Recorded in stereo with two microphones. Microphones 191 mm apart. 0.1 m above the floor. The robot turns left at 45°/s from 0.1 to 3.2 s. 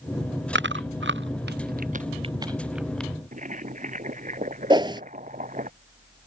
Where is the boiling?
45° right (ahead or behind).